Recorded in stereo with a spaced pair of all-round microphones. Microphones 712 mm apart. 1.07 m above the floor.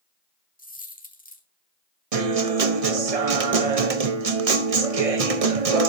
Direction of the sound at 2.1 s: 55° right (ahead or behind).